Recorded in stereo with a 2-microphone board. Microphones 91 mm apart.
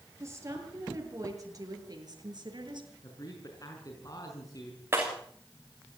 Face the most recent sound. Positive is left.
turn(degrees=-25)  # may be behind; listen again after turning